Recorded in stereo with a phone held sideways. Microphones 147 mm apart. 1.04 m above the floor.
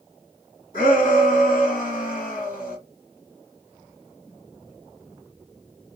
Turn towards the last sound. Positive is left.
turn(degrees=60)  # may be behind; listen again after turning